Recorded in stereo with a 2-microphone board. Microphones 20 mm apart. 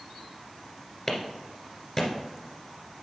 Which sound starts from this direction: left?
A clap, at 1.1 s.